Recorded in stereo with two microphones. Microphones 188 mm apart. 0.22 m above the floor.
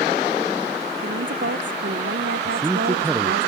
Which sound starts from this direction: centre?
A man speaking, at 2.5 s.